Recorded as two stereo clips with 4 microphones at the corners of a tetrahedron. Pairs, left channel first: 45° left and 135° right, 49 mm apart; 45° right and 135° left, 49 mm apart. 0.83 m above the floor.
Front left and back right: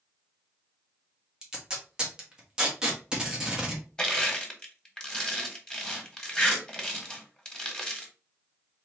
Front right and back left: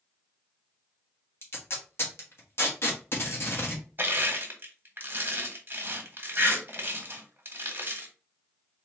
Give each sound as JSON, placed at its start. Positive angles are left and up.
{"t": 1.4, "sound": "tape being pulled", "azimuth_deg": -65, "distance_m": 1.4}
{"t": 4.0, "sound": "crushing", "azimuth_deg": 120, "distance_m": 1.3}